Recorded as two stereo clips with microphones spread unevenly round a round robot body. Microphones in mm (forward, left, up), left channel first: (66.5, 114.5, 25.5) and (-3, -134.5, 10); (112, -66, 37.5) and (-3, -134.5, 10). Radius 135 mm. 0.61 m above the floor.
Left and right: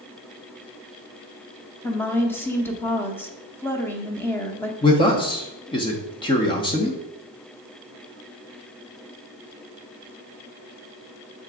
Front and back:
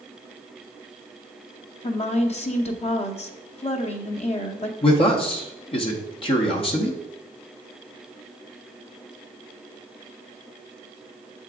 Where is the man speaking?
15° left, 0.9 m.